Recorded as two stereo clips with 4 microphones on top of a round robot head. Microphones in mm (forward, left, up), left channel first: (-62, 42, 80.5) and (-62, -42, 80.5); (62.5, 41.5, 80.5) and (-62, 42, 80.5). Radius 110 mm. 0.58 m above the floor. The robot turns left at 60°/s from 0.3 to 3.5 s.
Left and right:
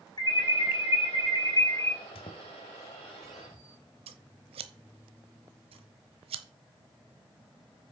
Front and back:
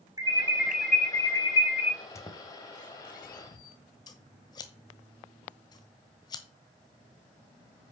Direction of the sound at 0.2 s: 120° left.